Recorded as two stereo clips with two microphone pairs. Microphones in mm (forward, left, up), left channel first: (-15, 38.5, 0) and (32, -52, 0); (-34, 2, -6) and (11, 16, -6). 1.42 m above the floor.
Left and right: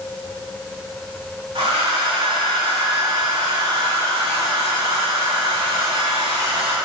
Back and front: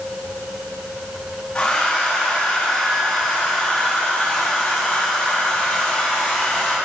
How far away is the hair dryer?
About 3 m.